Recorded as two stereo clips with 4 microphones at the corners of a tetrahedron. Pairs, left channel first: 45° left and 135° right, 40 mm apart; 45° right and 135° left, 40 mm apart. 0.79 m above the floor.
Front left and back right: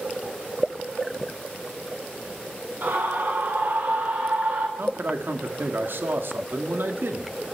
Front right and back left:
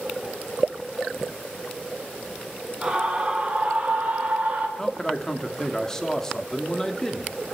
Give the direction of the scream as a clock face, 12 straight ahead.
5 o'clock.